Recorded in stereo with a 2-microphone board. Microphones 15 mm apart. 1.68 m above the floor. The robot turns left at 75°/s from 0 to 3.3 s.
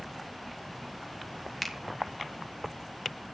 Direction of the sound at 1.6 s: 20° left (ahead or behind).